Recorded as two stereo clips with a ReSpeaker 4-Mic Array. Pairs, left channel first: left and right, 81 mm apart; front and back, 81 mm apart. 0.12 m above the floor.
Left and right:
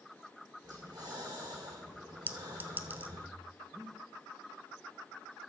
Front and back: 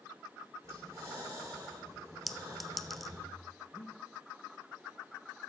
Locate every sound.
0.6 s breathing: 130° right, 5 m
2.3 s a clink: 85° right, 0.6 m
3.7 s breathing: straight ahead, 2 m